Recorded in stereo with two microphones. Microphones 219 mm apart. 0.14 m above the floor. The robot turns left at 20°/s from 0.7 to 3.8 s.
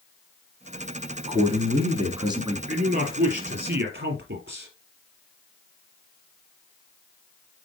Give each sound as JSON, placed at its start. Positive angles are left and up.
{"t": 1.3, "sound": "a man speaking", "side_deg": -25, "distance_m": 1.6}
{"t": 2.7, "sound": "a man speaking", "side_deg": -45, "distance_m": 3.5}